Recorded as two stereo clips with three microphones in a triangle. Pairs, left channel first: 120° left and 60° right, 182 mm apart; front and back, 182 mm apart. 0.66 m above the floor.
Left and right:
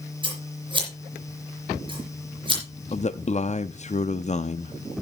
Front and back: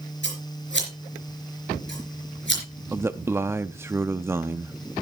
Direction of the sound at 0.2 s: 5° left.